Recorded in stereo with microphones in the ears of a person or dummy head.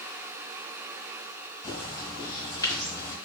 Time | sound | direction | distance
1.6 | a bird | 25° left (ahead or behind) | 1.7 m